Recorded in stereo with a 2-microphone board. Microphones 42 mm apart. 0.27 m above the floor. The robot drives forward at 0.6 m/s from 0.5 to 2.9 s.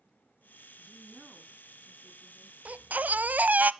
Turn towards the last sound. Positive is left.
turn(degrees=-45)  # may be behind; listen again after turning